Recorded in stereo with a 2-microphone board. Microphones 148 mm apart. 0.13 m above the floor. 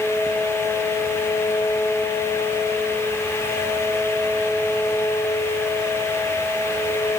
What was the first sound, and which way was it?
Only background noise.